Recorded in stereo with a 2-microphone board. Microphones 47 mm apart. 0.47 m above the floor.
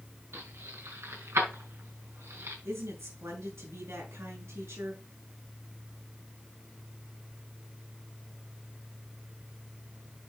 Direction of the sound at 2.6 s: 80° right.